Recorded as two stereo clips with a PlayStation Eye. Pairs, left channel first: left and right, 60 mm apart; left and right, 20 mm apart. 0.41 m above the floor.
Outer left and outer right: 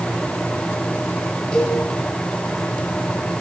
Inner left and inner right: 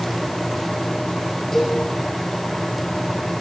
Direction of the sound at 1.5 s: 10° left (ahead or behind).